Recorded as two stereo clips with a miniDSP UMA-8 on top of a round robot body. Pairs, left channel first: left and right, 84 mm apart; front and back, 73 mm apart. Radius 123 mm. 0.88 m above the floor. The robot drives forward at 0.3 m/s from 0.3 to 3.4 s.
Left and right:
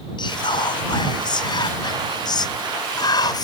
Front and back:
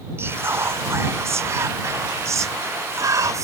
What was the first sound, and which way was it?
Whispering, 120° left.